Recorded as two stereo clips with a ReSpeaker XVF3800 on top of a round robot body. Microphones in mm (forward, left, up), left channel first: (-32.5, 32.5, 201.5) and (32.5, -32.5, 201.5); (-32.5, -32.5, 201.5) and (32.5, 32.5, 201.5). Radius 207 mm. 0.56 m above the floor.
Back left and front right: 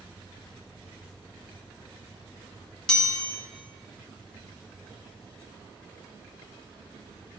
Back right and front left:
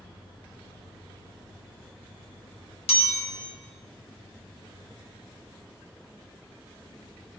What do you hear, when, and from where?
2.9 s a chime: 145° right, 0.9 m